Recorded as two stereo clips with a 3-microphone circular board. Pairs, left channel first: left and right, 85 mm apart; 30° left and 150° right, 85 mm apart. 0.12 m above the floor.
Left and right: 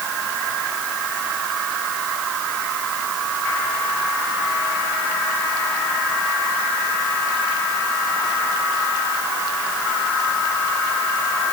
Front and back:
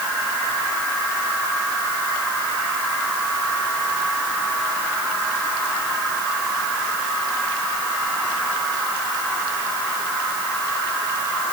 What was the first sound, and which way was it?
Only background noise.